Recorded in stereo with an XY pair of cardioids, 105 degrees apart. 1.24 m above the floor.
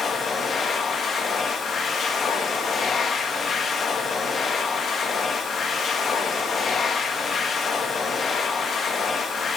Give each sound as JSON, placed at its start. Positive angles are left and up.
{"t": 0.0, "sound": "a machine running", "azimuth_deg": 50, "distance_m": 1.5}